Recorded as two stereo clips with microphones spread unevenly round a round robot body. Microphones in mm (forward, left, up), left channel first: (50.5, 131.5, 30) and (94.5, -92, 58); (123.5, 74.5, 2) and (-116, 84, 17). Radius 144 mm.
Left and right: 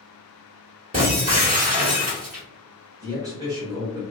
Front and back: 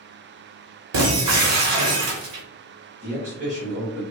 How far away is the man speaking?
About 1.4 m.